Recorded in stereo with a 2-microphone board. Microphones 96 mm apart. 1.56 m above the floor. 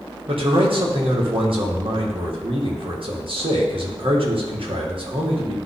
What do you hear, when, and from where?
0.3 s a man speaking: 65° right (ahead or behind), 1.8 m